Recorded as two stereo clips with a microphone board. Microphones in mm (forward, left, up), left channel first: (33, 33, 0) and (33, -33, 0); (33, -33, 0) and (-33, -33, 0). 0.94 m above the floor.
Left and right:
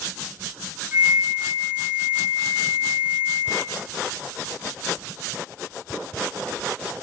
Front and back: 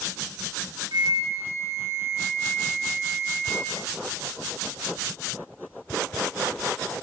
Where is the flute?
160° right, 3.5 m.